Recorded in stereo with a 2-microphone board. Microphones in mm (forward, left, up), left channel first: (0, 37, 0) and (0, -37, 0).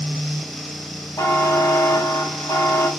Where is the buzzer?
45° left (ahead or behind), 0.8 m.